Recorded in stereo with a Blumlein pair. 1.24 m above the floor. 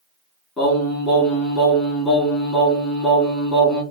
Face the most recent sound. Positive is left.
turn(degrees=20)